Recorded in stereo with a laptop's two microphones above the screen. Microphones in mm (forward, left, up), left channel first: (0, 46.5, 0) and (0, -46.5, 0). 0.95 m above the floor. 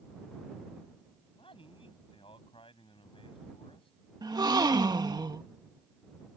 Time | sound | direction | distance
1.3 | a man speaking | 75° left (ahead or behind) | ?
4.2 | a gasp | 50° right (ahead or behind) | ?